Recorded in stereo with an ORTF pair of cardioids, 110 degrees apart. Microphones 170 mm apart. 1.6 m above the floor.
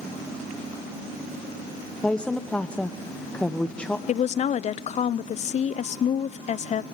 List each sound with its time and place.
2.0 s a woman speaking: 5° left, 1.1 m
4.1 s a woman speaking: 40° left, 0.7 m